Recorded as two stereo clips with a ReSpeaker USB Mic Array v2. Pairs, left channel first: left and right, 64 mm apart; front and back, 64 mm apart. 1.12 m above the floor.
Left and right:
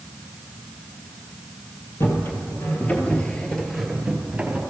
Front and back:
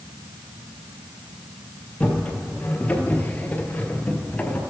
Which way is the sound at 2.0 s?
70° left.